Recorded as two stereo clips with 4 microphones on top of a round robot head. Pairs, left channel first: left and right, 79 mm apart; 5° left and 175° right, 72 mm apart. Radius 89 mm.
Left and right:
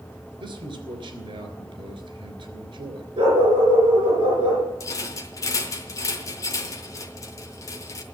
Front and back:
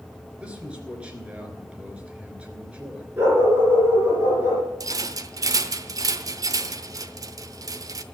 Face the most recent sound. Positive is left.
turn(degrees=145)